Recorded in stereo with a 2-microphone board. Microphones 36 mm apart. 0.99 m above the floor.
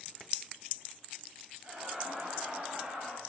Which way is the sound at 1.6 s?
45° right (ahead or behind).